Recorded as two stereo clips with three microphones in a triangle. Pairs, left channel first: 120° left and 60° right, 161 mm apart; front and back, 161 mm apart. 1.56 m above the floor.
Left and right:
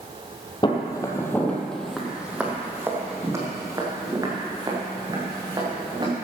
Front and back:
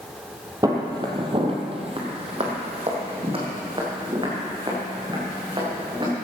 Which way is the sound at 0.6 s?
140° left.